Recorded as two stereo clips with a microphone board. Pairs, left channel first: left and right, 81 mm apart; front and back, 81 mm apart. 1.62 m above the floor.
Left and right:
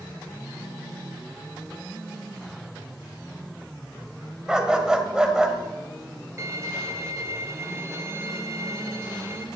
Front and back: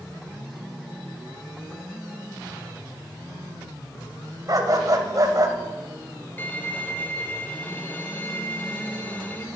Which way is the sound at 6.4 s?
55° right.